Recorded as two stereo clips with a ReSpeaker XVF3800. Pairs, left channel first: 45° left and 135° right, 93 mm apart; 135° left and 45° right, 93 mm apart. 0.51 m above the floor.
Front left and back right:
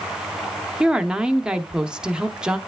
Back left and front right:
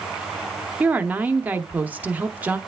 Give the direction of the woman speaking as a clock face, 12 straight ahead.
2 o'clock.